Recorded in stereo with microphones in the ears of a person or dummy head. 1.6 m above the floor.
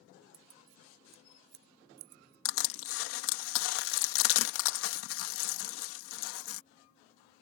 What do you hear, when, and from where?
0.3 s keys jangling: 70° right (ahead or behind)
2.5 s crushing: 85° left